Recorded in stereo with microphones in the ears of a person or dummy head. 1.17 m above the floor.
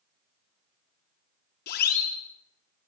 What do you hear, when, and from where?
1.7 s a siren: 55° left (ahead or behind), 3 m